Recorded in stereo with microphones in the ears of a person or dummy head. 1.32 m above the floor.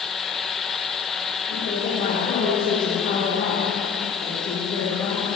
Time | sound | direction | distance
1.5 | a woman speaking | 35° left (ahead or behind) | 3 m